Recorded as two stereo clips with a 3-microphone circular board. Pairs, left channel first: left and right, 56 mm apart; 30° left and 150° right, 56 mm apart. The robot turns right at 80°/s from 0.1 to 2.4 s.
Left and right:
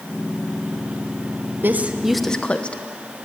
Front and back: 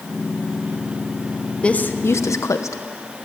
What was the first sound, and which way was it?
A woman speaking, 40° right.